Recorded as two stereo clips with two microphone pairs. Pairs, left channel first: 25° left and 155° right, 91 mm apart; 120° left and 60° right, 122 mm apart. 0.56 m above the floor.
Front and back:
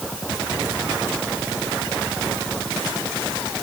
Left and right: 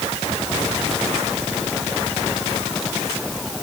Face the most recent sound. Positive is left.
No sound to turn to.